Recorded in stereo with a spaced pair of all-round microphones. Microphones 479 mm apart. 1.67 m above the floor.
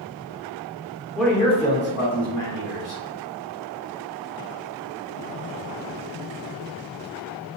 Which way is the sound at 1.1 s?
Centre (ahead or behind).